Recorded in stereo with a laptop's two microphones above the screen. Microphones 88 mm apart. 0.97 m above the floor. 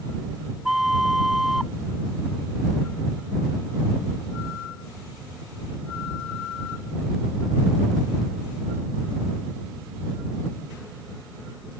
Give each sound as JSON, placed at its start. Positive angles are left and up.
{"t": 0.7, "sound": "a flute", "side_deg": -5}